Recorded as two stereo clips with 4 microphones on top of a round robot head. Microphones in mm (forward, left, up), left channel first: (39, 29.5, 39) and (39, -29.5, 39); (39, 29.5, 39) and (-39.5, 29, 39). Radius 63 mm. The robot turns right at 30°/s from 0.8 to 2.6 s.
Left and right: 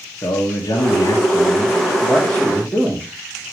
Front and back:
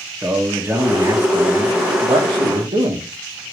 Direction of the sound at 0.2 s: 110° left.